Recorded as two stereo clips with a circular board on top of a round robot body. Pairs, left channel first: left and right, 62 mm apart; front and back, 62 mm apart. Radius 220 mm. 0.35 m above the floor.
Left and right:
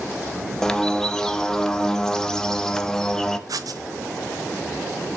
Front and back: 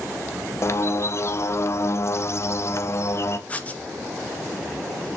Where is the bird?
10° left, 1.1 m.